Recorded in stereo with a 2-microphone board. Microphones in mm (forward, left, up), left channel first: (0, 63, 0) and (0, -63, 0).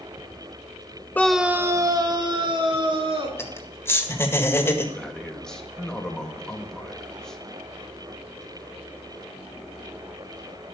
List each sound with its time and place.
1.1 s a scream: 15° left (ahead or behind), 0.7 m; by 3.3 s 50° right (ahead or behind), 3 m
3.4 s laughter: 20° left (ahead or behind), 1.8 m
5.0 s a man speaking: 5° left (ahead or behind), 1.5 m